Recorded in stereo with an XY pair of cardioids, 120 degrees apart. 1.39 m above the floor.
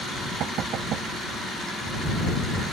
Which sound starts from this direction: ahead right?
Knocking, at 0.4 s.